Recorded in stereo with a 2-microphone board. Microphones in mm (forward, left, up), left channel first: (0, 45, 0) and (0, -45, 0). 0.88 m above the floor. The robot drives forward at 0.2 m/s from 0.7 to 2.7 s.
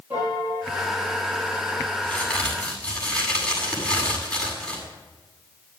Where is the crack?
15° left (ahead or behind), 7.5 m.